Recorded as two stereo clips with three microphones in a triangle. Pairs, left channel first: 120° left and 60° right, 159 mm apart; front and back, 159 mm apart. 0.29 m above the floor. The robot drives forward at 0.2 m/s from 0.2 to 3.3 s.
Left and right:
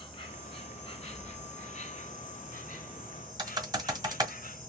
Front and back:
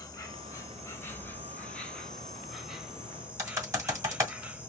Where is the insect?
65° left, 1.2 m; by 4.7 s 100° left, 1.1 m.